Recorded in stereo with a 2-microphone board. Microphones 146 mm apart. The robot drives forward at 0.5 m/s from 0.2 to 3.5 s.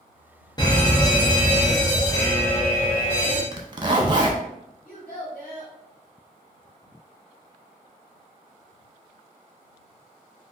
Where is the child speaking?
70° left (ahead or behind), 1.6 m.